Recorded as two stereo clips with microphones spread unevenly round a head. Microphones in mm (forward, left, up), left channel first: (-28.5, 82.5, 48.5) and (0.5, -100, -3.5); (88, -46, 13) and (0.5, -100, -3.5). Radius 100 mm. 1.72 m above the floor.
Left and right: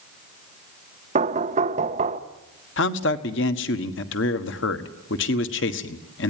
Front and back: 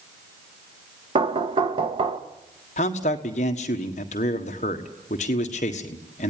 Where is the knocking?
140° right, 1.1 m.